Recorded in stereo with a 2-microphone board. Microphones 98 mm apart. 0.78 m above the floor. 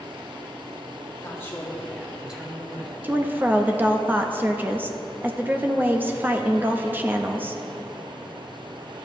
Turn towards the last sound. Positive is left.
turn(degrees=-20)  # may be behind; listen again after turning